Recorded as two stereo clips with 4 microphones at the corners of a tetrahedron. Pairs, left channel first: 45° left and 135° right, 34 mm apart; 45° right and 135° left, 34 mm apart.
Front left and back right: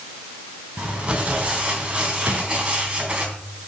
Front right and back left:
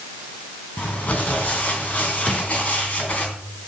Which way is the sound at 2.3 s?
125° right.